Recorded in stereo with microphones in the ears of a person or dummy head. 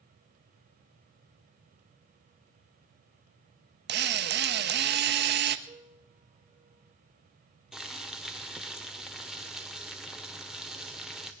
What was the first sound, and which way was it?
A drill, 55° right (ahead or behind).